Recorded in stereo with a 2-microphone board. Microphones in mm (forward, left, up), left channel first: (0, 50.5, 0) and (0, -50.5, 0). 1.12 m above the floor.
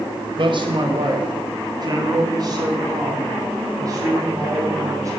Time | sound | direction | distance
0.4 | a man speaking | 55° right (ahead or behind) | 1.9 m